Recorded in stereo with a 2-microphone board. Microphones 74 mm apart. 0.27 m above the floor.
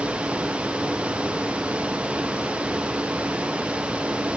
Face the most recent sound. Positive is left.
No sound to turn to.